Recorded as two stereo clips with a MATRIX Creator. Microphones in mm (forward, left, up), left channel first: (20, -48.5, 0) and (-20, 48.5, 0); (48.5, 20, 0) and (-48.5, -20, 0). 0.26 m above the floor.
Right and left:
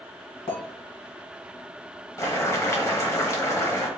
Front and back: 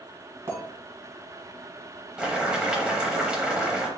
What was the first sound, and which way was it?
A clink, 95° right.